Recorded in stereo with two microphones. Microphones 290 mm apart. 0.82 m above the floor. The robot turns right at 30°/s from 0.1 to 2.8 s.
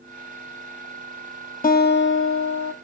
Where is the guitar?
30° left, 0.5 m; by 2.7 s 65° left, 0.5 m.